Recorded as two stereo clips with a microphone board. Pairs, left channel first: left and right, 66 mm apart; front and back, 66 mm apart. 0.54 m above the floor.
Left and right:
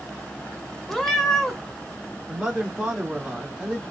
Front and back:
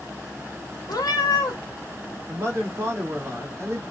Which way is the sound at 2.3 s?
160° right.